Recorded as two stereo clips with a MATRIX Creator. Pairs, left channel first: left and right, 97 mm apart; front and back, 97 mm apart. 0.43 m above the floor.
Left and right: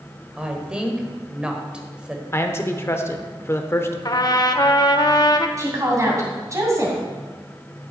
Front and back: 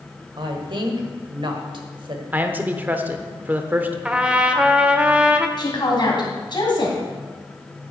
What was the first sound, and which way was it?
A woman speaking, 170° right.